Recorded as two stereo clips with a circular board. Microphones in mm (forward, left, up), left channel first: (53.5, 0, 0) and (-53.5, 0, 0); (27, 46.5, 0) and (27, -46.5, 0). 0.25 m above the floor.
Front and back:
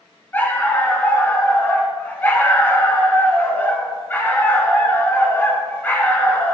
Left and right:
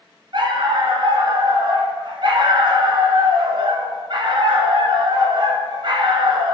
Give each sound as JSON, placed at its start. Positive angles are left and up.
{"t": 0.3, "sound": "a dog barking", "azimuth_deg": -70, "distance_m": 1.2}